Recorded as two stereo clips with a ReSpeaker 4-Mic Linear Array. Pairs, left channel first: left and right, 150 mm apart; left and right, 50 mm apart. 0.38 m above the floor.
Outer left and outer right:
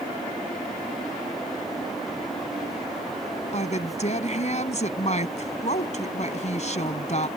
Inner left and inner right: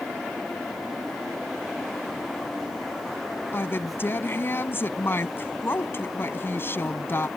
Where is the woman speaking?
50° left (ahead or behind).